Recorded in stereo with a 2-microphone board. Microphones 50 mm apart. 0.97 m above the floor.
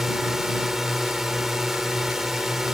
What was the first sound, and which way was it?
A drone, 10° right (ahead or behind).